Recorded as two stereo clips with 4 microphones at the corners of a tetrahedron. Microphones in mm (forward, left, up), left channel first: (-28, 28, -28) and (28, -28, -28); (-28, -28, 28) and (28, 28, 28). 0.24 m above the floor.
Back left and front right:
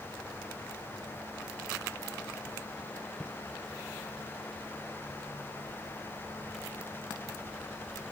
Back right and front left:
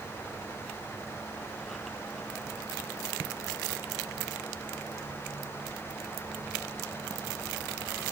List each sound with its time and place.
Only background noise.